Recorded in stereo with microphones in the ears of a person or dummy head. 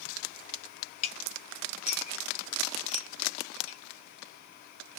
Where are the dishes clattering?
35° left (ahead or behind), 1.0 m.